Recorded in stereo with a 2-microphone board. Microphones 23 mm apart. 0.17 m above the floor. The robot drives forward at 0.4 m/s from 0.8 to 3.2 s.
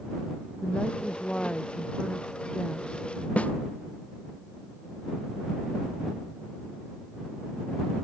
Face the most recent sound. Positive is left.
turn(degrees=80)